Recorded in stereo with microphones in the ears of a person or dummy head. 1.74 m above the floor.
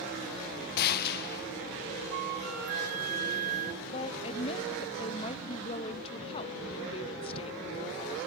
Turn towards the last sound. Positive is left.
turn(degrees=30)  # may be behind; listen again after turning